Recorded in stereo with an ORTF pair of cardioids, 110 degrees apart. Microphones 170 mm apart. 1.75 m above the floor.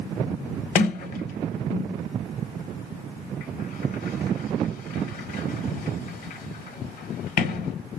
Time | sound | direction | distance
0.8 | a sliding door | 55° left | 0.7 m